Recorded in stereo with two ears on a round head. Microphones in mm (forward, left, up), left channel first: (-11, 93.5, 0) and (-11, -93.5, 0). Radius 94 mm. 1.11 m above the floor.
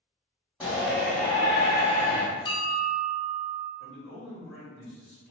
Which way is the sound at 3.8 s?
10° left (ahead or behind).